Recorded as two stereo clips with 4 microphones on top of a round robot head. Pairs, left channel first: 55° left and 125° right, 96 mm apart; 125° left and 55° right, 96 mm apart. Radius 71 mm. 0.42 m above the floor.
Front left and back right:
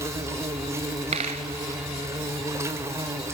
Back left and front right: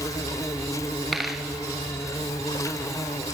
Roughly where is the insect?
Behind.